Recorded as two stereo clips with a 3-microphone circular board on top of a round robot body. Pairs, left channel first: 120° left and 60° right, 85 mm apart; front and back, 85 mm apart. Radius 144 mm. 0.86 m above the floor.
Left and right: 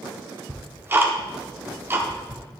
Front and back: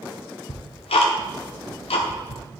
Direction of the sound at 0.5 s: 5° left.